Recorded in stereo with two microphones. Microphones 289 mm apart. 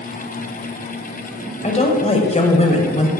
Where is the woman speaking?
25° left (ahead or behind), 1.4 m.